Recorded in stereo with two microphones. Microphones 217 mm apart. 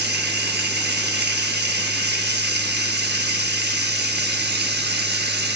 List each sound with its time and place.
0.0 s running water: 50° right (ahead or behind), 0.8 m